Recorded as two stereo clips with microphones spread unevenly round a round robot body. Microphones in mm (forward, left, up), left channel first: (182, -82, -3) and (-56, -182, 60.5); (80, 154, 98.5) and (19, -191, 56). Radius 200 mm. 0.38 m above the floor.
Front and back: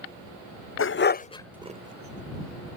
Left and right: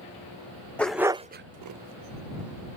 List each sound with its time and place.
0.8 s a dog barking: 10° right; by 2.8 s 135° right